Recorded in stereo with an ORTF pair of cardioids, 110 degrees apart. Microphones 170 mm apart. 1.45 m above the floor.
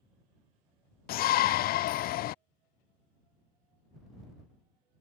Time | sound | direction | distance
1.1 | a shout | 60° left | ?